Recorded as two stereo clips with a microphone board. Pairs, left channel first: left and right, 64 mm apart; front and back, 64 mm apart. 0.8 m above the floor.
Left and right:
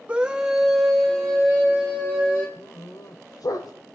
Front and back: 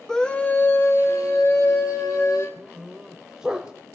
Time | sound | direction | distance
0.1 | a scream | 65° right | 1.0 m
2.6 | a dog barking | 105° left | 1.2 m